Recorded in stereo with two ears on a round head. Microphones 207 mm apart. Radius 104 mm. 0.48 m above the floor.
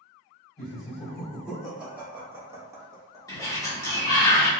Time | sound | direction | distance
0.6 | laughter | centre (ahead or behind) | 1.5 m
3.3 | a sliding door | 15° left (ahead or behind) | 0.9 m